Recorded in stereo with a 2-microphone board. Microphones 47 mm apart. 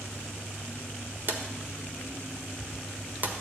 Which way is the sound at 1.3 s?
45° right (ahead or behind).